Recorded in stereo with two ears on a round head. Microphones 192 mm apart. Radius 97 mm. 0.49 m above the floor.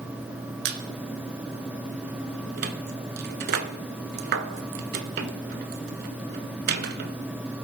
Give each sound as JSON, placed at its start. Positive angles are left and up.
{"t": 0.7, "sound": "a squeak", "side_deg": -50, "distance_m": 0.6}